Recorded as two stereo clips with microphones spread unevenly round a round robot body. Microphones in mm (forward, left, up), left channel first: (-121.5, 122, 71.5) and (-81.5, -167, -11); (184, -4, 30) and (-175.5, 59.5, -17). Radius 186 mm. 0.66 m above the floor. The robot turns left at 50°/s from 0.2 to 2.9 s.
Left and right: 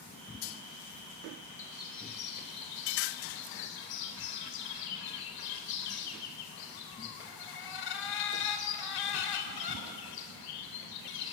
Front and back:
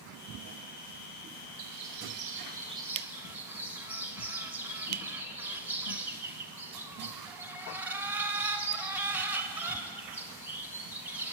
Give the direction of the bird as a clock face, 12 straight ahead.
7 o'clock.